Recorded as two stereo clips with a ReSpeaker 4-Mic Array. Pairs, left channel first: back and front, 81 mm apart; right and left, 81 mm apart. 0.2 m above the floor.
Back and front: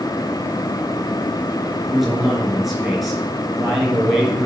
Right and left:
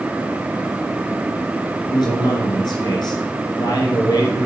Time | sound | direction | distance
1.9 | a man speaking | 90° right | 3.5 m